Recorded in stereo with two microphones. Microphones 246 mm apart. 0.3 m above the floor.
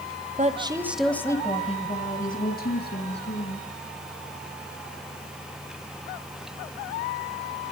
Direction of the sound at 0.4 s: 30° right (ahead or behind).